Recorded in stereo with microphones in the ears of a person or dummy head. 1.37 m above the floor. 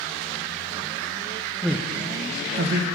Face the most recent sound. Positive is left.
turn(degrees=-70)  # may be behind; listen again after turning